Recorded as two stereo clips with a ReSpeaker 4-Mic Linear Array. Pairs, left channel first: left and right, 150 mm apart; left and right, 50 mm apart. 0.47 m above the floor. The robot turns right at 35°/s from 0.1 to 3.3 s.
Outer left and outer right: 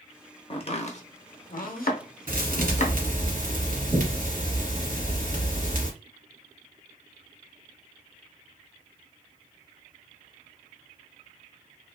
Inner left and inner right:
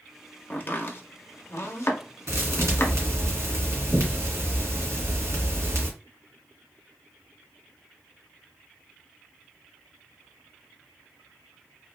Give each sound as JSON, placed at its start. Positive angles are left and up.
{"t": 0.5, "sound": "chopping", "side_deg": 40, "distance_m": 0.6}
{"t": 2.3, "sound": "a thud", "azimuth_deg": -105, "distance_m": 1.3}